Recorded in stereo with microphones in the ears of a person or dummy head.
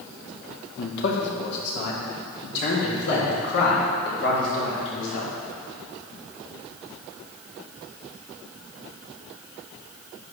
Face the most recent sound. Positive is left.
turn(degrees=60)  # may be behind; listen again after turning